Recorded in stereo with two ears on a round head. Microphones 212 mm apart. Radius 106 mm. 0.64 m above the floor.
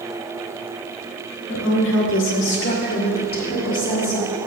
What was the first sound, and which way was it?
A woman speaking, 55° left (ahead or behind).